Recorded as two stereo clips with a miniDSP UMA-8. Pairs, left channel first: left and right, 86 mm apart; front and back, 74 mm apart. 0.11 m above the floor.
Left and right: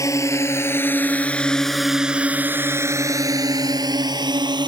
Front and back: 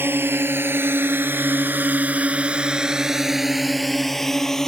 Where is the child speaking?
I don't hear a child speaking.